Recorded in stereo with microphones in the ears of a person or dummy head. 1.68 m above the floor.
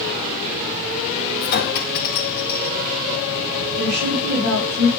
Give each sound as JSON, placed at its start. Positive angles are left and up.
{"t": 1.4, "sound": "a clink", "side_deg": 50, "distance_m": 1.8}
{"t": 3.8, "sound": "a woman speaking", "side_deg": -55, "distance_m": 3.0}